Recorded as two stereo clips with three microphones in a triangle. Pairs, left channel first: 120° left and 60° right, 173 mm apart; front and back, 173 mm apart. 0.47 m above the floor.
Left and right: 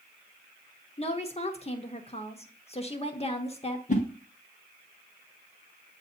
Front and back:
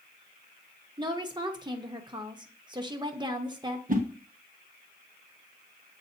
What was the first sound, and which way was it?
A woman speaking, 135° left.